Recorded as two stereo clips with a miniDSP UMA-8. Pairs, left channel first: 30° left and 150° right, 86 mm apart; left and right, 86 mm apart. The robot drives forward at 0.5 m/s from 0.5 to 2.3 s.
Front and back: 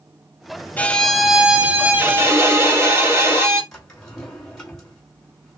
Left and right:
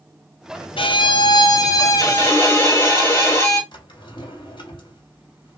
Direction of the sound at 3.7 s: 115° left.